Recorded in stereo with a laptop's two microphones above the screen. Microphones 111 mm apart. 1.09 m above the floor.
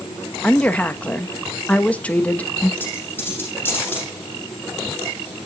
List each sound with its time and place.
0.4 s a woman speaking: 10° left (ahead or behind), 1.0 m
2.8 s a dropped coin: 15° left (ahead or behind), 8 m